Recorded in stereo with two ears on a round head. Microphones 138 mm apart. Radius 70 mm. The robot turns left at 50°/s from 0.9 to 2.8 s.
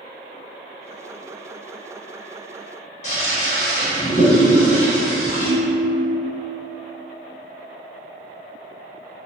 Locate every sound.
3.0 s a toilet flushing: 45° left (ahead or behind), 0.8 m
5.4 s a ringtone: 5° left (ahead or behind), 0.6 m